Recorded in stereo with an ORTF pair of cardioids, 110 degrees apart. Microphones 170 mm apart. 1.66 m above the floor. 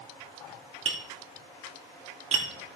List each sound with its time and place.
0.8 s tapping: 40° right, 2.5 m